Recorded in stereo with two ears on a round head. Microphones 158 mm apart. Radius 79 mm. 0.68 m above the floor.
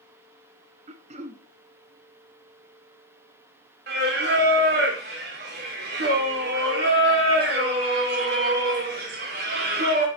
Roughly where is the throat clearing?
Right.